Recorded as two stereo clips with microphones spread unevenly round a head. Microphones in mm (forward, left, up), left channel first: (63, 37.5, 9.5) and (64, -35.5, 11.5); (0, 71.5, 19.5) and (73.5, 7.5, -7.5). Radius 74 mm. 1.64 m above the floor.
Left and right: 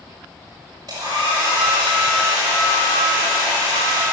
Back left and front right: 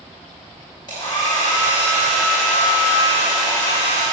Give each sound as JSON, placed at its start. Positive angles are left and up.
{"t": 0.9, "sound": "a hair dryer", "azimuth_deg": -160, "distance_m": 5.5}